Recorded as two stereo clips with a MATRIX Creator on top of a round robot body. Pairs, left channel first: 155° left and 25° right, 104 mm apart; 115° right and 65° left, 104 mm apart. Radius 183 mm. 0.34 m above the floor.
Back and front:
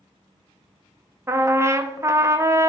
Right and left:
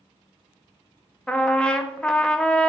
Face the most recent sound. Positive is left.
turn(degrees=-40)